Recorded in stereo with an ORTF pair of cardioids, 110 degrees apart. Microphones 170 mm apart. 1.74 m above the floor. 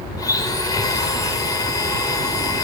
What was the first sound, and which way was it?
A blender, 20° left.